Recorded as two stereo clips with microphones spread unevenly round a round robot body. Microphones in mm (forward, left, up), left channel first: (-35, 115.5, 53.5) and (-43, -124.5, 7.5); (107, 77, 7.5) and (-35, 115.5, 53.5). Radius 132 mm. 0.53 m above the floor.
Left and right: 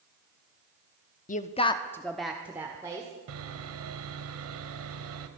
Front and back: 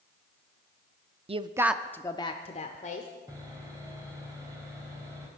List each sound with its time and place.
1.3 s a woman speaking: 130° left, 0.8 m; by 3.1 s 20° right, 1.7 m
3.3 s sawing: 115° right, 1.3 m